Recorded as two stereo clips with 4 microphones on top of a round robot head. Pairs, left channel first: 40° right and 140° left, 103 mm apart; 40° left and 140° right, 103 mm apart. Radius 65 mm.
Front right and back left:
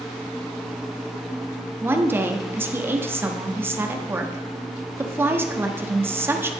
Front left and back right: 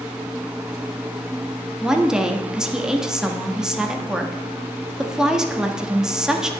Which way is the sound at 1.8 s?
145° left.